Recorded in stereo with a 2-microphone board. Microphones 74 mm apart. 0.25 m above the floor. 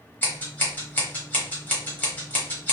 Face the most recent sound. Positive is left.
turn(degrees=25)  # may be behind; listen again after turning